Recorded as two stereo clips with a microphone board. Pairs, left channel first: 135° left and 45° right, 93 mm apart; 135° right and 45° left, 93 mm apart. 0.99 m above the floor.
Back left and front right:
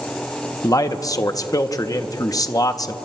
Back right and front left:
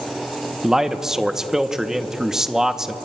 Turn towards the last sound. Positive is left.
turn(degrees=125)